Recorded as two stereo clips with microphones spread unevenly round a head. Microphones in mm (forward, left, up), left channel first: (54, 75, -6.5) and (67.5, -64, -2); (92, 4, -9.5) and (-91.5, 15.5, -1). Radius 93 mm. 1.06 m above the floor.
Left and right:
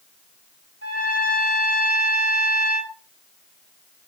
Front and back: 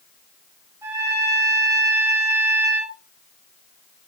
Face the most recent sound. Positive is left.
turn(degrees=-105)